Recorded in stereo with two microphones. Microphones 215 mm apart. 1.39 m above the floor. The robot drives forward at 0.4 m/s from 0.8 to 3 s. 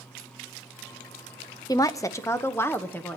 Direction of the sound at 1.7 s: 20° left (ahead or behind).